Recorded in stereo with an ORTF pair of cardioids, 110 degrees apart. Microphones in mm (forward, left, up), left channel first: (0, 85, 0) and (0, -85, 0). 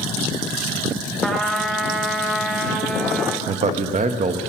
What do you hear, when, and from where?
1.2 s a trumpet: straight ahead, 1.5 m
3.5 s a man speaking: 45° right, 1.0 m